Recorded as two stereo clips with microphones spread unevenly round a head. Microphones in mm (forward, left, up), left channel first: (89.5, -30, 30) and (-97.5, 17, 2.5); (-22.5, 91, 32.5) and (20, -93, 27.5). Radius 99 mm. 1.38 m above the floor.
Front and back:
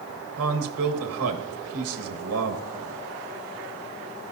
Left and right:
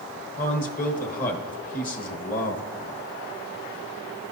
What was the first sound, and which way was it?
A man speaking, 150° left.